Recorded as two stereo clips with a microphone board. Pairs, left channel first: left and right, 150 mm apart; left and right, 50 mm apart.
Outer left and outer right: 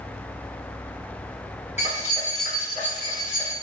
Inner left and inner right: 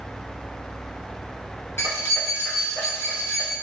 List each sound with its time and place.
1.8 s keys jangling: 50° left (ahead or behind), 1.0 m; by 3.5 s 55° left (ahead or behind), 1.9 m